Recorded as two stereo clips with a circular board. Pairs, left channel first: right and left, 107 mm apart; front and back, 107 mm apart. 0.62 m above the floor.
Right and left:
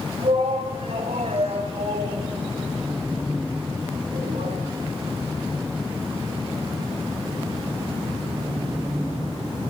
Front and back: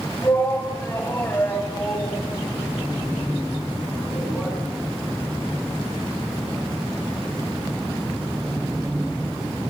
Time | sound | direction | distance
0.2 | a shout | 65° left | 4 m